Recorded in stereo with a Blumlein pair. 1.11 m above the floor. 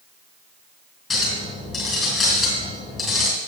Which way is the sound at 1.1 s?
20° left.